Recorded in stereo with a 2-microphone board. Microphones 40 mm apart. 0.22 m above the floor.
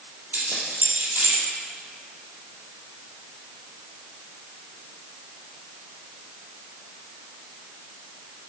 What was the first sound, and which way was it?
Keys jangling, 55° right (ahead or behind).